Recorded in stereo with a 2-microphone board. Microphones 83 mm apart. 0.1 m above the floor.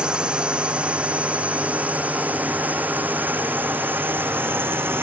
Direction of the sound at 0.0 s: 10° right (ahead or behind).